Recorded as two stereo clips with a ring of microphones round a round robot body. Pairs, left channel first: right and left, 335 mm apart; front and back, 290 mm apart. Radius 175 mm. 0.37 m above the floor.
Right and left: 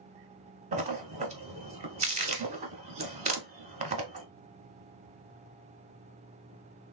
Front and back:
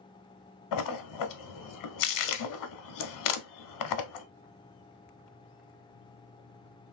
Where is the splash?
20° left, 0.7 m.